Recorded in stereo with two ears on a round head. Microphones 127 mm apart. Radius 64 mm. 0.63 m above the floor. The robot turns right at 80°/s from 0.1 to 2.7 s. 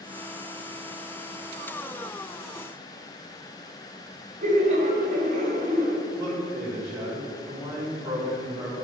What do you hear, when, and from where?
4.4 s laughter: 55° right (ahead or behind), 2.5 m
6.2 s a man speaking: 20° right (ahead or behind), 3 m